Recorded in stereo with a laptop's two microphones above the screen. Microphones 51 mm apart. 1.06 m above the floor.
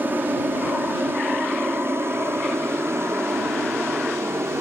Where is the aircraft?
45° right (ahead or behind); by 4.6 s 65° right (ahead or behind).